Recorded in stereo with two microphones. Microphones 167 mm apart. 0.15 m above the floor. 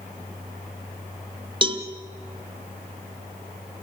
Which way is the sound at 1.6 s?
30° right (ahead or behind).